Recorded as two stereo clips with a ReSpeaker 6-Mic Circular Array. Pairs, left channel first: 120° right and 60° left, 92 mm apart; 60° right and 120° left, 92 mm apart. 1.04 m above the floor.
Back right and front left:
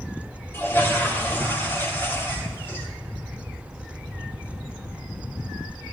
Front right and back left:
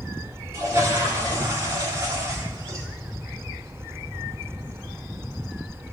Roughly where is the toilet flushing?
Behind.